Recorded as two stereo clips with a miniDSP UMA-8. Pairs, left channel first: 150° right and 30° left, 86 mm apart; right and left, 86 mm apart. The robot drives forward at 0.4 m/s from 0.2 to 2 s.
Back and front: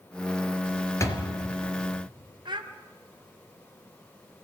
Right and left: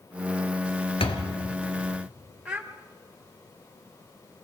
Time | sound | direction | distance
1.0 | a door slam | 95° right | 3.5 m
2.5 | a child speaking | 10° left | 1.5 m